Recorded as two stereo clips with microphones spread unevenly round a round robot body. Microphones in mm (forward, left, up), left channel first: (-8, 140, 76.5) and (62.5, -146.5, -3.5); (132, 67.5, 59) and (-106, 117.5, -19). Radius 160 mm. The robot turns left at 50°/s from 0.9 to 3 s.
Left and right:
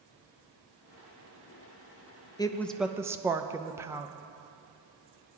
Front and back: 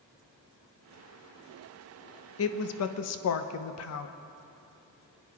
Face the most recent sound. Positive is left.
turn(degrees=-15)